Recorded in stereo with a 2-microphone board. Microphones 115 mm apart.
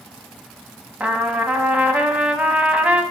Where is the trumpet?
10° right (ahead or behind), 0.8 m.